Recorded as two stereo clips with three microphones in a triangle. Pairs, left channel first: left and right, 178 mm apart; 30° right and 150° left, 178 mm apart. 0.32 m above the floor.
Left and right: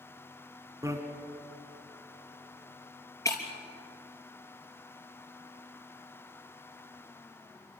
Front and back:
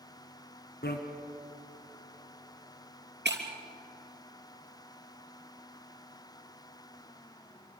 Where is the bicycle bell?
20° right, 2 m.